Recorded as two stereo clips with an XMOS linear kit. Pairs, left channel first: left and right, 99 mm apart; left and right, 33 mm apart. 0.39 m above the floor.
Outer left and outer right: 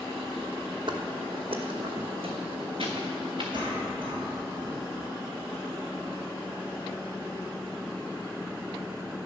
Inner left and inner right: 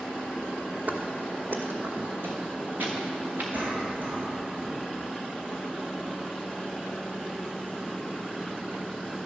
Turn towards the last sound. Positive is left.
turn(degrees=-60)  # may be behind; listen again after turning